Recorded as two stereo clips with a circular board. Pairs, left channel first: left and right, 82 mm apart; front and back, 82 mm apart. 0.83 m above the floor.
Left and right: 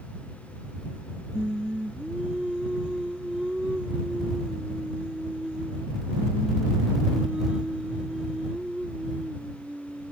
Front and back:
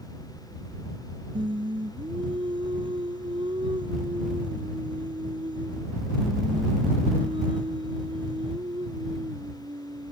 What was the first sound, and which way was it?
Singing, 170° right.